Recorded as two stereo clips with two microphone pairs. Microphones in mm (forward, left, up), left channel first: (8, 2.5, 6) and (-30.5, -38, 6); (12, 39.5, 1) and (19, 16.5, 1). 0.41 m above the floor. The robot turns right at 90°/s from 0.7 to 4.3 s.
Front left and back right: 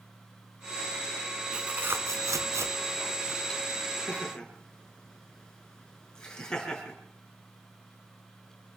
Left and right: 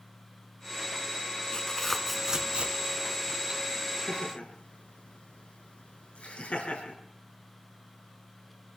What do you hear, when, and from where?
1.5 s tearing paper: 150° left, 1.5 m; by 3.6 s 20° right, 1.5 m
4.1 s laughter: 100° left, 5.5 m; by 7.0 s 125° left, 5.5 m